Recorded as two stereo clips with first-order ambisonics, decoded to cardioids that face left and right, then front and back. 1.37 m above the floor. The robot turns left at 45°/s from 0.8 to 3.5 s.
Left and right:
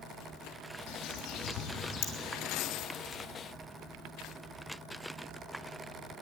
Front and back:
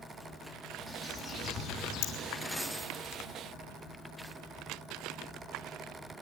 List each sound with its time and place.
0.9 s a bird: 95° left, 3.5 m; by 2.1 s 40° left, 3.5 m